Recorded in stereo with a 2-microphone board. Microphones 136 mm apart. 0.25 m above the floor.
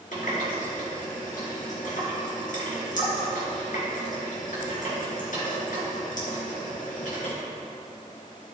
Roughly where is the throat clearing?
No throat clearing in this recording.